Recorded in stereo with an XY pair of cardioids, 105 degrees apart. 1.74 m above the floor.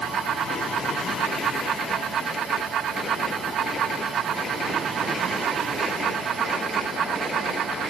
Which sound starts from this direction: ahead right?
A fan, at 0.0 s.